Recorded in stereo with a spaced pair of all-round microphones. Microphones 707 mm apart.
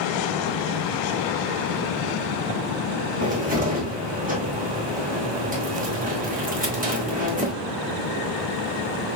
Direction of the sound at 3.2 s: 10° right (ahead or behind).